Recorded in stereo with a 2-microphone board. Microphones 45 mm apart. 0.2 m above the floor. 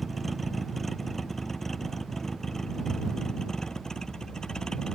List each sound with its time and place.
0.0 s a vehicle: 5° left (ahead or behind); by 5.0 s 20° left (ahead or behind)